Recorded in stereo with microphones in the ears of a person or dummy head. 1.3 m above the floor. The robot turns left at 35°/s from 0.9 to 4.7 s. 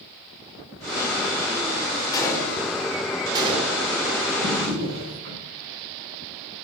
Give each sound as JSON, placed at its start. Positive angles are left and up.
{"t": 2.1, "sound": "a gunshot", "side_deg": 20, "distance_m": 3.5}
{"t": 4.4, "sound": "a drawer", "side_deg": -50, "distance_m": 6.0}